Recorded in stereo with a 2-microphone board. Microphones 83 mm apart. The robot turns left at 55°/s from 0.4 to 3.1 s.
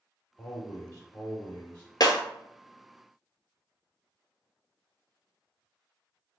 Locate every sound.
0.4 s a man speaking: 15° left (ahead or behind), 1.1 m; by 1.9 s 20° left (ahead or behind), 1.1 m
2.0 s breaking glass: 55° left (ahead or behind), 0.7 m; by 2.2 s 45° left (ahead or behind), 0.7 m